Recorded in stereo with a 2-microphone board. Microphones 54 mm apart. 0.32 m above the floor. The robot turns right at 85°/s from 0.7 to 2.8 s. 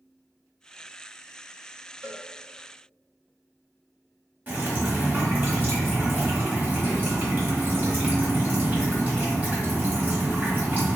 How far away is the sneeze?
I don't hear a sneeze.